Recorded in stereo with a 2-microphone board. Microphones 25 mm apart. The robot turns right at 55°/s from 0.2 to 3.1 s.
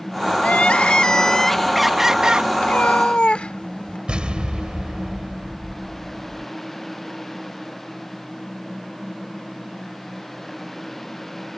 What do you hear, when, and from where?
0.4 s crying: 105° left; by 2.5 s 140° right
2.6 s a cat meowing: 70° left (ahead or behind); by 4.0 s 50° left (ahead or behind)
4.1 s an explosion: 40° right (ahead or behind)